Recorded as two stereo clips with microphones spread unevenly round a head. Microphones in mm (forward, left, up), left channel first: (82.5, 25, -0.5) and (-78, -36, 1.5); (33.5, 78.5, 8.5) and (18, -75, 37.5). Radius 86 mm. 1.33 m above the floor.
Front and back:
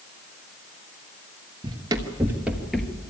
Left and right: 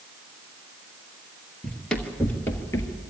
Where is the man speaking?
I don't hear a man speaking.